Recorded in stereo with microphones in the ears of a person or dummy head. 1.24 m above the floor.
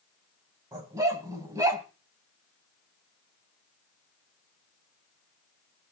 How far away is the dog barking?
About 4.5 m.